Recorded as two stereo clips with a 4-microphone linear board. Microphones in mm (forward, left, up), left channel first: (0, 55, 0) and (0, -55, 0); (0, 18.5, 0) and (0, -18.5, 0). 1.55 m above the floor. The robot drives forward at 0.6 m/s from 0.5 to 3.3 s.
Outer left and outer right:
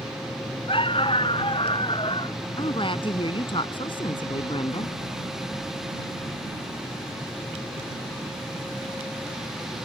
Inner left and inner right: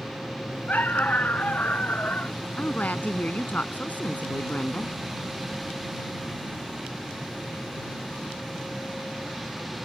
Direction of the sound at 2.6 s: 50° left (ahead or behind).